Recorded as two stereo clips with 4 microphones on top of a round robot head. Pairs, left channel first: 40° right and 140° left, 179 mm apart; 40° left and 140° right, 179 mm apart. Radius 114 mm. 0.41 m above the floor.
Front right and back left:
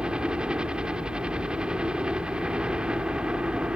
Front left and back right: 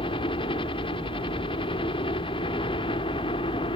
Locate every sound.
0.0 s a helicopter: 60° left